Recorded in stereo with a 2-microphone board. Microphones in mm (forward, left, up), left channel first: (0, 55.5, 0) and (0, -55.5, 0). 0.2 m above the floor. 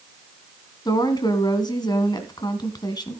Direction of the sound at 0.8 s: 40° left (ahead or behind).